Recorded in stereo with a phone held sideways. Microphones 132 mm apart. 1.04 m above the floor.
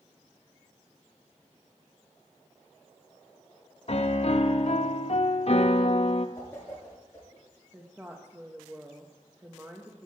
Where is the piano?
50° left (ahead or behind), 0.7 m.